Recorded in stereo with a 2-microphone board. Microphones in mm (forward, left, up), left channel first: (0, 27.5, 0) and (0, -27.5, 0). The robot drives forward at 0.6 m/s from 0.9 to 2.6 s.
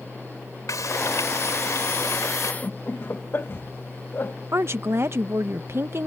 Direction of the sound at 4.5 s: 50° right (ahead or behind).